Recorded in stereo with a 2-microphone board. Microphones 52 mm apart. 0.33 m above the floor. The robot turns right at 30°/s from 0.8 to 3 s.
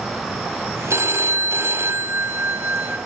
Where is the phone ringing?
95° right, 1.4 m; by 3.0 s 35° right, 1.4 m.